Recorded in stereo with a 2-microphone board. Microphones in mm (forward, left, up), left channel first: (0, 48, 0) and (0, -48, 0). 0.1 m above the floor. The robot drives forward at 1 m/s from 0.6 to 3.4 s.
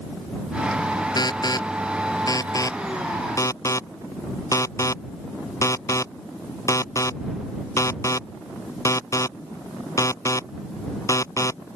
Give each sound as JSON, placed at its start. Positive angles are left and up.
{"t": 1.2, "sound": "an alarm", "side_deg": 45}